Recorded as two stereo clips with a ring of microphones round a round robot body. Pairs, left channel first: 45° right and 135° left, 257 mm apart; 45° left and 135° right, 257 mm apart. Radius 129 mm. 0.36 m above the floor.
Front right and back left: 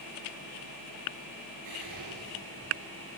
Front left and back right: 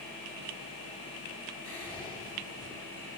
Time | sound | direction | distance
1.6 | whispering | 140° left | 4.5 m